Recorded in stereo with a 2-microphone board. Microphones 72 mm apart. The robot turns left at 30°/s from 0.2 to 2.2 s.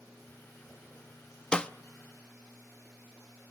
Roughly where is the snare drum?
Centre.